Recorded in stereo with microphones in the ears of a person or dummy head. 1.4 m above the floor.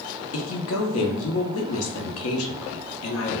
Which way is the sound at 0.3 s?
85° left.